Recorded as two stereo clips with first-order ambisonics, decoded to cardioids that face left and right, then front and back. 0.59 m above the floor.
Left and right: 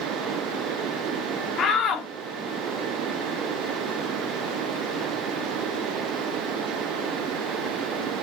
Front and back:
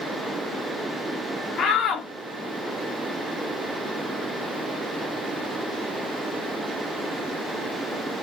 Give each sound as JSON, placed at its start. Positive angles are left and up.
{"t": 1.6, "sound": "a shout", "azimuth_deg": 45, "distance_m": 1.0}